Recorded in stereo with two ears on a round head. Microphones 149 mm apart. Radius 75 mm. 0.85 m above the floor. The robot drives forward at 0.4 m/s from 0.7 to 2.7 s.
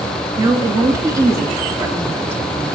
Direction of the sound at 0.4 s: 20° right (ahead or behind).